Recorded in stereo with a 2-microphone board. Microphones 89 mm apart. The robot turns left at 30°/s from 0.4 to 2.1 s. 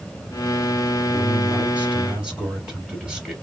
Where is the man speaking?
140° right, 2 m; by 3.3 s 170° right, 2 m.